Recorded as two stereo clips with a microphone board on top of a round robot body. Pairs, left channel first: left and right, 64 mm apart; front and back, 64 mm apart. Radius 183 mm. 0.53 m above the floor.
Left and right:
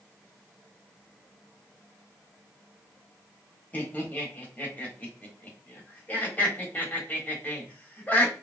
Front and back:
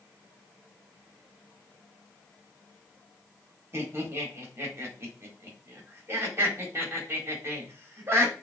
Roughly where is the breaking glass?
No breaking glass in this recording.